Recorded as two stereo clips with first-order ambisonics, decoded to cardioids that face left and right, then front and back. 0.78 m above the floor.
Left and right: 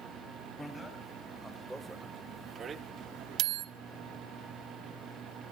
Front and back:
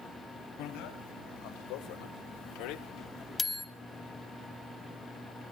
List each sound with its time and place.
0.6 s a bicycle bell: 10° left, 3.5 m; by 3.7 s 90° right, 1.0 m